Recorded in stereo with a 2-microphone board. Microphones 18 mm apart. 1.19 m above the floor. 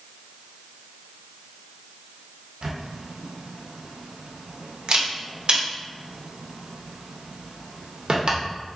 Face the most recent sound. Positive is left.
turn(degrees=-55)  # may be behind; listen again after turning